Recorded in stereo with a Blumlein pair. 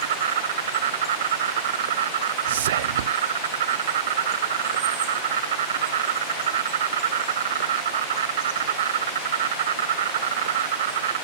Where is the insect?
60° right.